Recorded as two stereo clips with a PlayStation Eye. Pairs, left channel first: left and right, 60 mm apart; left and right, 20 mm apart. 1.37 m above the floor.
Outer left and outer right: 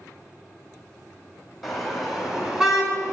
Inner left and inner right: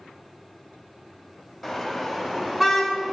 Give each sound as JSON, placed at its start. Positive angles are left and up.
{"t": 1.6, "sound": "a car horn", "side_deg": 0, "distance_m": 3.5}